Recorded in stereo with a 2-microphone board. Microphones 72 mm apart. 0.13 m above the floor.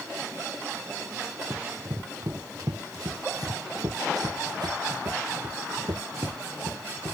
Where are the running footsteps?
45° right (ahead or behind); by 7.1 s 90° right.